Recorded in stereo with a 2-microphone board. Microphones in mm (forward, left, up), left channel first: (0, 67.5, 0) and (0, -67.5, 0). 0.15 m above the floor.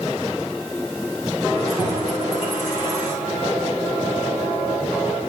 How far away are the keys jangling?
About 9 m.